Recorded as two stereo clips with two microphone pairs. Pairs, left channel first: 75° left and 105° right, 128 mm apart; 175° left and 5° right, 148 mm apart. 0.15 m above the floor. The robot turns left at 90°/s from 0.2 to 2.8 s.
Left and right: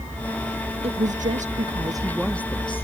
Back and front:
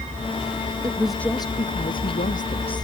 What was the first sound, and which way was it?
A woman speaking, 70° right.